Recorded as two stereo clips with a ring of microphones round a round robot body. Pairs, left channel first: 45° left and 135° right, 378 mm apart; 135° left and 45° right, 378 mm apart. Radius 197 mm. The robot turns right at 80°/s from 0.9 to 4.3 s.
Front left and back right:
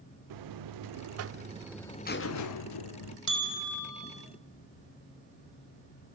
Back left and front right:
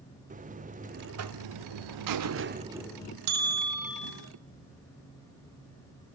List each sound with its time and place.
0.3 s a buzzer: 115° right, 1.1 m; by 3.2 s 70° left, 1.1 m
3.3 s a bell: 45° right, 4.5 m; by 4.1 s 25° left, 4.5 m